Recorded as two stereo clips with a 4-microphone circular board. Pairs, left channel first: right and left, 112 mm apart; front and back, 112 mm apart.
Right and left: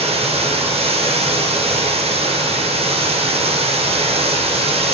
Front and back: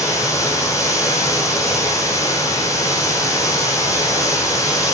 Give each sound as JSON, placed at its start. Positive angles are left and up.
{"t": 0.0, "sound": "running water", "azimuth_deg": 65, "distance_m": 4.0}